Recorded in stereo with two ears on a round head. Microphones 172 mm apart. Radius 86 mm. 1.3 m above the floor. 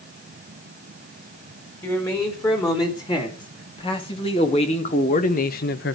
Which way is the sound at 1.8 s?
20° left (ahead or behind).